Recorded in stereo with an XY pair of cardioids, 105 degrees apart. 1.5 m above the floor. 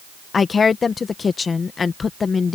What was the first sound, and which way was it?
A woman speaking, 40° left.